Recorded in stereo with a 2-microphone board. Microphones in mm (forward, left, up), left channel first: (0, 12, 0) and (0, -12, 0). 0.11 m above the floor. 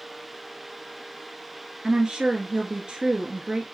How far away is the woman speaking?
About 1.3 m.